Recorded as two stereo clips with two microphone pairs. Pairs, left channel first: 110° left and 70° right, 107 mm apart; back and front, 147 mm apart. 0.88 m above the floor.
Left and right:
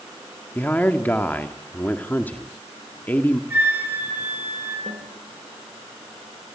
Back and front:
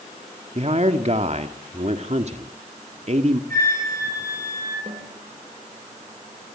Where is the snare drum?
45° right, 4 m.